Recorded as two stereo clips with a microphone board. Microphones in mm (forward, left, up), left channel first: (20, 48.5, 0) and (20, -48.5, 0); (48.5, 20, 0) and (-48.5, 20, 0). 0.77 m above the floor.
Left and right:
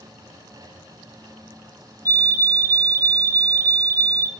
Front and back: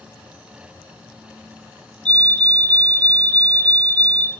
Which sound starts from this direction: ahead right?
A fire alarm, at 2.0 s.